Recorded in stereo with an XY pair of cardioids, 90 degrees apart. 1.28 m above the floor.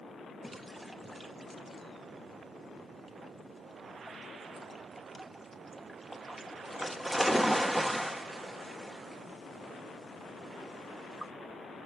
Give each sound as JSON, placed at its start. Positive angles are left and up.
{"t": 0.4, "sound": "a splash", "azimuth_deg": 0, "distance_m": 0.9}